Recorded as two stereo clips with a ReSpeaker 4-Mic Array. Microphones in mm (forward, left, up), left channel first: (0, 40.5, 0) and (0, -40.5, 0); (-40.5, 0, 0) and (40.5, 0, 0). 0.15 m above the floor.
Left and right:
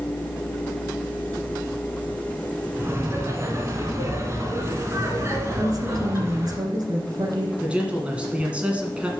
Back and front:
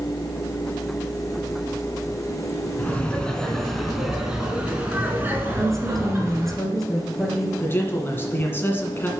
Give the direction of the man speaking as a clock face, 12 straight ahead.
5 o'clock.